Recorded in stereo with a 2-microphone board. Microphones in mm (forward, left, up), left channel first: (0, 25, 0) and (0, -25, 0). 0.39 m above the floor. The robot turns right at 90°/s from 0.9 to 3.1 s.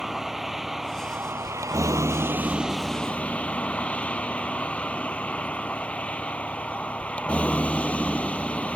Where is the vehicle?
175° right; by 8.8 s 25° left.